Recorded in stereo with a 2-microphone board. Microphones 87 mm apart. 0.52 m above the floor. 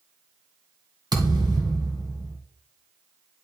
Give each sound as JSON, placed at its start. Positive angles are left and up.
{"t": 1.1, "sound": "a thud", "side_deg": -50, "distance_m": 1.8}